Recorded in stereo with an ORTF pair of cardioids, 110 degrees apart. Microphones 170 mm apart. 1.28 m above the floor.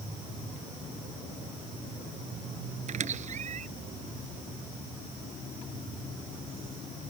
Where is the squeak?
45° right.